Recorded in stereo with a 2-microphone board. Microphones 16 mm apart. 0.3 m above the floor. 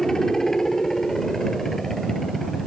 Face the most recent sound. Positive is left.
turn(degrees=15)  # may be behind; listen again after turning